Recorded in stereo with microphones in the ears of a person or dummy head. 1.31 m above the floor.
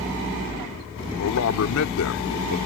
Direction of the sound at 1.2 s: 75° left (ahead or behind).